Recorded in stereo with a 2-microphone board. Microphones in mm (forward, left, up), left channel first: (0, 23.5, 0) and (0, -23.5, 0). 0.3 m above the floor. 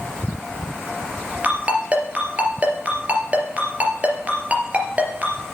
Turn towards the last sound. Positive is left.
turn(degrees=-35)  # may be behind; listen again after turning